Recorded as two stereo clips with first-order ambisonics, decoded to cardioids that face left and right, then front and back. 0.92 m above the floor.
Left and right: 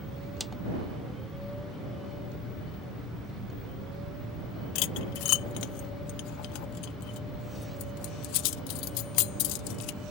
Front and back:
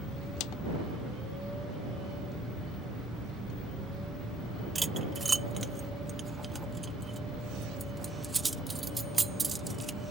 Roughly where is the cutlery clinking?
Left.